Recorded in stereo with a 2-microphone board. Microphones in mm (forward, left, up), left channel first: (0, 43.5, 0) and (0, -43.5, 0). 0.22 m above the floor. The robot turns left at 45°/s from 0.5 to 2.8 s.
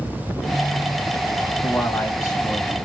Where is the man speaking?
145° left, 1.9 m; by 2.8 s 90° left, 1.9 m.